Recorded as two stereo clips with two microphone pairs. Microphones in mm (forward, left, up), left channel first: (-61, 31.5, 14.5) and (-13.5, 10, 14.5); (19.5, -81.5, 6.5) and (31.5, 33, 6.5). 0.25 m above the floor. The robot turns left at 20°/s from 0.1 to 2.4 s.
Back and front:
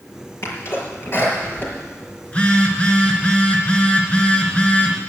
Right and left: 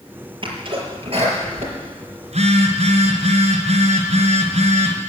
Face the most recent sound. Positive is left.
turn(degrees=90)